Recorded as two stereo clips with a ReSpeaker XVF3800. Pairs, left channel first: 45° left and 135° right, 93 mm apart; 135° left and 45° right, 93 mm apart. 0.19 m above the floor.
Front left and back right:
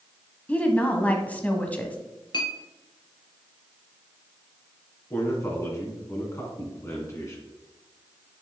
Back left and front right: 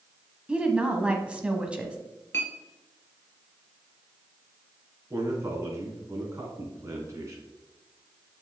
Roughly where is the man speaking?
Ahead.